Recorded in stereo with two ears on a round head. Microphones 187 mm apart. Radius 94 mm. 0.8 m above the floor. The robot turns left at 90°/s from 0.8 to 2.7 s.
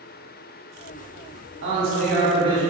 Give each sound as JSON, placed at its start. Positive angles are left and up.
{"t": 1.6, "sound": "a man speaking", "azimuth_deg": -70, "distance_m": 1.3}